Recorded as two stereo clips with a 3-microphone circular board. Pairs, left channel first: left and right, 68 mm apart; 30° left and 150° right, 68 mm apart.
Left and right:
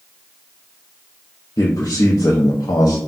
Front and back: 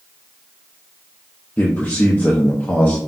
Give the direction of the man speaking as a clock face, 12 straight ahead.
9 o'clock.